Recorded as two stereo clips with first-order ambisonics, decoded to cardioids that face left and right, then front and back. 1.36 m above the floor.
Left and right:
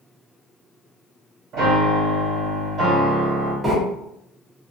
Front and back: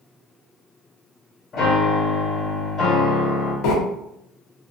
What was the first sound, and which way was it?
A piano, 45° right.